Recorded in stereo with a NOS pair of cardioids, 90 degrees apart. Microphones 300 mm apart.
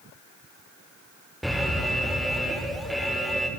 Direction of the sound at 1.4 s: Straight ahead.